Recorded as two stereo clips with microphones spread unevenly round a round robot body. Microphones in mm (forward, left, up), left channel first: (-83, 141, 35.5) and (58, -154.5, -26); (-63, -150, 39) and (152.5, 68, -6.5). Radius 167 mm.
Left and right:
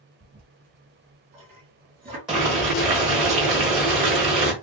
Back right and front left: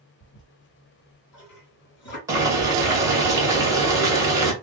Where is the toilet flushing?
125° right, 1.9 m.